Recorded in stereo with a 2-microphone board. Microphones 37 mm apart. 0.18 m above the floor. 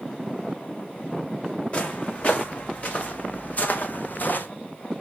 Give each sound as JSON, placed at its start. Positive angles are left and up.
{"t": 1.7, "sound": "footsteps", "side_deg": 35, "distance_m": 5.5}